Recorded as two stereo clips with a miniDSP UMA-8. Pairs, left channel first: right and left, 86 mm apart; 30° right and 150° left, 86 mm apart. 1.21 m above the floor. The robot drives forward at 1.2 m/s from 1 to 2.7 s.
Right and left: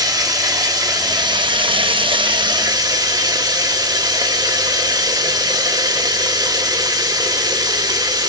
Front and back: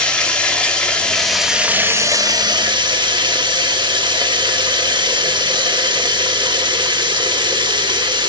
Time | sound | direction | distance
0.0 | running water | 50° left | 1.7 m